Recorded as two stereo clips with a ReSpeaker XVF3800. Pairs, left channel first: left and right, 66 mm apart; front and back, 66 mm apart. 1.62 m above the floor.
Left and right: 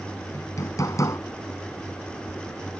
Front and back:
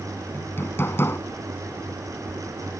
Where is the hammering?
55° left.